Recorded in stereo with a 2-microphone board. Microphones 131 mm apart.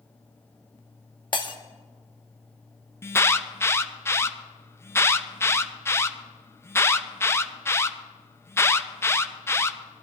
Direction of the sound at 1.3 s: 35° left (ahead or behind).